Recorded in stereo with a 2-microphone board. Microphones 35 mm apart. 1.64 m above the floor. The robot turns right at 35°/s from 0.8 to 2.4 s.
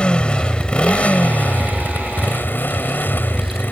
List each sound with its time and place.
0.0 s a motorcycle: 30° left; by 3.7 s 85° left